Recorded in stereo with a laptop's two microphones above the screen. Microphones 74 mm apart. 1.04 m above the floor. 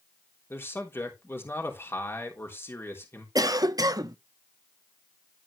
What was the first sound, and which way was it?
A man speaking, 30° left (ahead or behind).